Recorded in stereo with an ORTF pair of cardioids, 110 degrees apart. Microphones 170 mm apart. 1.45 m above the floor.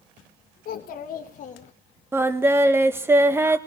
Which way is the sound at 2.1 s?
15° right.